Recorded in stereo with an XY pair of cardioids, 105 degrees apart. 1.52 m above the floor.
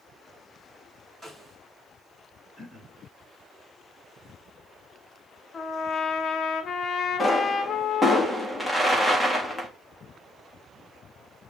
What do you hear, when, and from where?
1.2 s a snare drum: 10° right, 6 m
2.6 s throat clearing: 5° left, 5.5 m
5.5 s a trumpet: 45° left, 1.4 m
7.2 s a pop: straight ahead, 3.5 m